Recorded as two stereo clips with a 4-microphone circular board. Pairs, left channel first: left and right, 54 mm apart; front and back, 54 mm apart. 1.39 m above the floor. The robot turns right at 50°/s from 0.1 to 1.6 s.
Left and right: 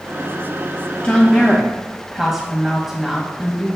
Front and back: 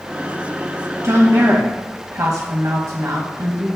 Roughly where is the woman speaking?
Behind.